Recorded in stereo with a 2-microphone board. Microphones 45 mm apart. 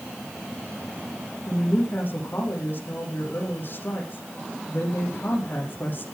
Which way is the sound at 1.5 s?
45° left (ahead or behind).